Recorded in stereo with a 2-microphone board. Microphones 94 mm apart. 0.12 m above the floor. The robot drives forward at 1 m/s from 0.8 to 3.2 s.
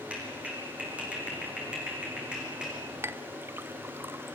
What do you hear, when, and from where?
0.1 s a clap: 15° right (ahead or behind), 6.5 m; by 2.8 s 10° right (ahead or behind), 8.5 m
3.0 s a clink: 25° right (ahead or behind), 0.7 m